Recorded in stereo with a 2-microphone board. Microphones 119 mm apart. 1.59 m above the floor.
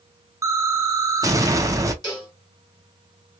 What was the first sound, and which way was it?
An explosion, 25° right (ahead or behind).